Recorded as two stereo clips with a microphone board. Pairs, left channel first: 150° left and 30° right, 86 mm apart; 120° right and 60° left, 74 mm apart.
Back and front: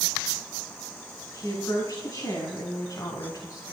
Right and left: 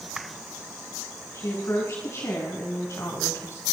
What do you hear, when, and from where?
1.3 s a woman speaking: 165° right, 5 m; by 3.6 s 170° right, 2.5 m